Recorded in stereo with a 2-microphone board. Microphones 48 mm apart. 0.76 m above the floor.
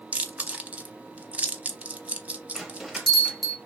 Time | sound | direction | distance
0.1 | chewing | 25° right (ahead or behind) | 0.6 m
2.5 | a bell | centre (ahead or behind) | 0.9 m